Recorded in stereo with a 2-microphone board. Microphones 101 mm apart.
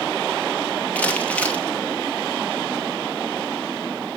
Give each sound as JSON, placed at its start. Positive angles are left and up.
{"t": 0.9, "sound": "crumpling", "side_deg": 15, "distance_m": 2.5}